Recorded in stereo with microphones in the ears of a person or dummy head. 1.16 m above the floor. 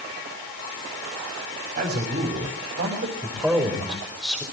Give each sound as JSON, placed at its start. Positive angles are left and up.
{"t": 1.8, "sound": "a man speaking", "side_deg": -50, "distance_m": 5.5}
{"t": 3.2, "sound": "a man speaking", "side_deg": -5, "distance_m": 5.0}